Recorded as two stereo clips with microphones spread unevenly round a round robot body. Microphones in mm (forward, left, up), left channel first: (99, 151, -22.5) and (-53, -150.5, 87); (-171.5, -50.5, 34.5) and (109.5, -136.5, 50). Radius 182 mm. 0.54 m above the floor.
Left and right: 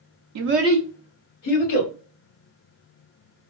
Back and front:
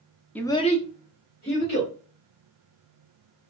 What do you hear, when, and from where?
0.3 s a child speaking: 125° right, 0.6 m; by 1.9 s 105° left, 1.8 m